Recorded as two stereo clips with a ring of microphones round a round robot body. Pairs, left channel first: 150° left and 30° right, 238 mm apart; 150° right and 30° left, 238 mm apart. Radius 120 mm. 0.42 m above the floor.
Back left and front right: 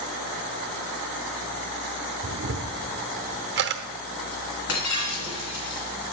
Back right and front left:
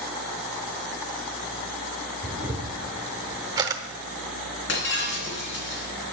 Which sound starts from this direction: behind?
Breaking glass, at 4.7 s.